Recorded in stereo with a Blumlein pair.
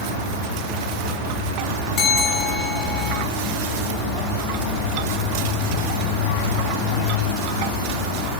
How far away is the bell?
About 6 m.